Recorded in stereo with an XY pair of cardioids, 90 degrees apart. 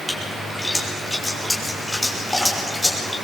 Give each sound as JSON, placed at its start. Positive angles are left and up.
{"t": 0.1, "sound": "a splash", "azimuth_deg": 5, "distance_m": 6.5}